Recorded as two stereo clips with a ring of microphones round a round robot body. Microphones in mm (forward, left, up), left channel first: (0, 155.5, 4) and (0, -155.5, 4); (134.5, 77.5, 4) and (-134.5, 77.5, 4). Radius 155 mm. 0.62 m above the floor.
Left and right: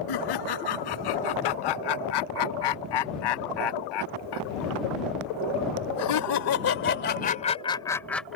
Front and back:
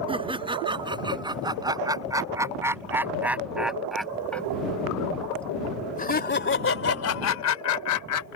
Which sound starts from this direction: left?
Laughter, at 0.1 s.